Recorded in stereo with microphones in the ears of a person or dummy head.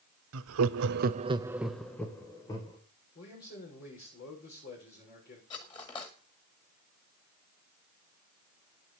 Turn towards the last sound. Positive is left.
turn(degrees=25)  # may be behind; listen again after turning